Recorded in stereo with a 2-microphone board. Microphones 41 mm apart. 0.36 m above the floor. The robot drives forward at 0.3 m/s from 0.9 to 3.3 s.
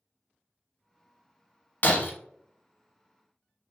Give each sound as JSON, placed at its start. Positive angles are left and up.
{"t": 1.8, "sound": "breaking glass", "side_deg": 45, "distance_m": 0.5}